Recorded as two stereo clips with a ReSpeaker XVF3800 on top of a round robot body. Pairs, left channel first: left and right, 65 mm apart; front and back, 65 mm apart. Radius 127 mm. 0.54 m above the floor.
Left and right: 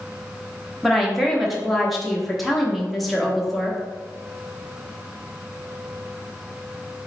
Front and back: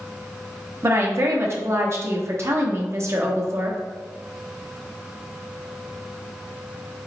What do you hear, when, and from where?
0.8 s a woman speaking: straight behind, 1.0 m